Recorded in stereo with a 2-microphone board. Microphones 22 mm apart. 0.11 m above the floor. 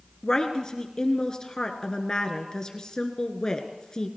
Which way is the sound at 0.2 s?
30° left (ahead or behind).